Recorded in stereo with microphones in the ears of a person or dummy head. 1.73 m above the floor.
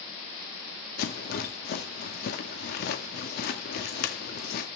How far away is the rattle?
About 1.9 m.